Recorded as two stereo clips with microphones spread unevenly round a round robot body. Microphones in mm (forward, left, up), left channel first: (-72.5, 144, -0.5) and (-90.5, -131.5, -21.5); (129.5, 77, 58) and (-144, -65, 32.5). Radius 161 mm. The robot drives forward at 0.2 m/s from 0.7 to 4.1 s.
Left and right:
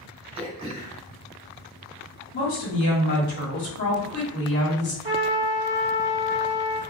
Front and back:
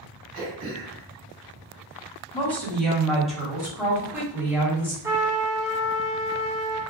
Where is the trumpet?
95° right, 1.0 m.